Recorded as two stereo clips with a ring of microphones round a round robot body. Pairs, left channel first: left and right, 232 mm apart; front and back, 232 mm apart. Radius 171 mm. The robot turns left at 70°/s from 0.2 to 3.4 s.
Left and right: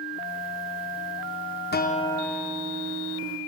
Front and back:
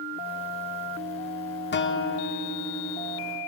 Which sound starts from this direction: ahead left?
A guitar, at 1.7 s.